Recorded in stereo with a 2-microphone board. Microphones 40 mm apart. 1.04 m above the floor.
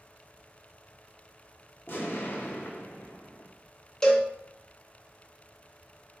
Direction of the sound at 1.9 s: 55° left (ahead or behind).